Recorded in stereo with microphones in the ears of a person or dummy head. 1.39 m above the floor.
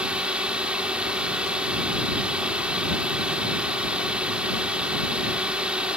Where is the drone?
5° right (ahead or behind).